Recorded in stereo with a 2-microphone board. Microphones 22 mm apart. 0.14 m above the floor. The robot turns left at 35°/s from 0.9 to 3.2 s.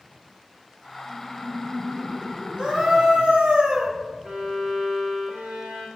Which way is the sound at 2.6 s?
50° right (ahead or behind).